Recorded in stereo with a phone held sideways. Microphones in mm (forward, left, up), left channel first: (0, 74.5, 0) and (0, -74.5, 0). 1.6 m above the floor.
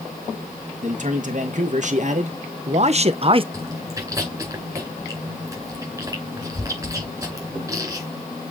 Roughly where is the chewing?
Right.